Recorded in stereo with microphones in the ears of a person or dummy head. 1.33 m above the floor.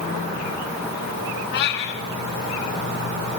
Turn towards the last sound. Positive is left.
turn(degrees=65)  # may be behind; listen again after turning